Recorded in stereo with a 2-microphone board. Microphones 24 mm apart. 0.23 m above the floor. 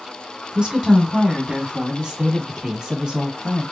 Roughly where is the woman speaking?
Right.